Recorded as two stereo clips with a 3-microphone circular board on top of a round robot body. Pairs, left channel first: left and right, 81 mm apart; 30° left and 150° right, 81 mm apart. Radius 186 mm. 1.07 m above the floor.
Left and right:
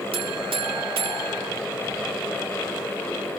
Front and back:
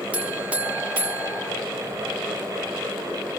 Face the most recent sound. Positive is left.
turn(degrees=-75)